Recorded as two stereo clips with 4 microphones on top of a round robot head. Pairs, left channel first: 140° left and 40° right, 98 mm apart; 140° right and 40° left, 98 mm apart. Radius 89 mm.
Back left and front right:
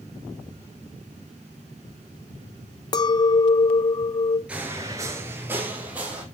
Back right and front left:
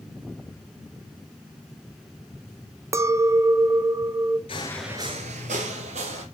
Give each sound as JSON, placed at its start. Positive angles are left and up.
{"t": 2.9, "sound": "a clink", "azimuth_deg": 95, "distance_m": 0.6}
{"t": 4.5, "sound": "footsteps", "azimuth_deg": -115, "distance_m": 0.8}